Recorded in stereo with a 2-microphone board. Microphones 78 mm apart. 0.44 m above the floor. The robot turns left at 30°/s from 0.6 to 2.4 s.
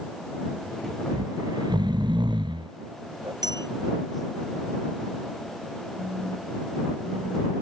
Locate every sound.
1.1 s snoring: 55° right (ahead or behind); by 3.3 s 85° right
3.4 s a bell: 60° right (ahead or behind)
6.0 s a phone buzzing: 45° right (ahead or behind)